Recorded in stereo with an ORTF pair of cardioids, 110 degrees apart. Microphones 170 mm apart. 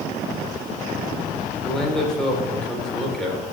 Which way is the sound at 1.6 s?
5° left.